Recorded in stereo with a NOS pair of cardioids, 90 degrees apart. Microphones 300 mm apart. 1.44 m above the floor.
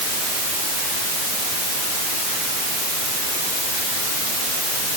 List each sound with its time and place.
Only background noise.